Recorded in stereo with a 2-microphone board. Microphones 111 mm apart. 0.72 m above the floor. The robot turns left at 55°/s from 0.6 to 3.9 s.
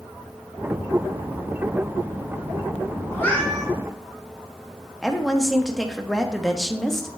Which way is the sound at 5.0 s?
5° left (ahead or behind).